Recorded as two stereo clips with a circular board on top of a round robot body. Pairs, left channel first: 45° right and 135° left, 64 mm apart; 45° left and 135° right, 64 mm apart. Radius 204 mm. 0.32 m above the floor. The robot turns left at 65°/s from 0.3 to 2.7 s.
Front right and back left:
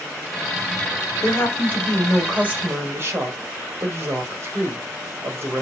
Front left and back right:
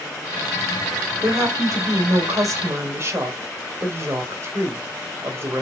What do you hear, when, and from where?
1.2 s a woman speaking: 80° right, 3 m; by 5.6 s straight behind, 3 m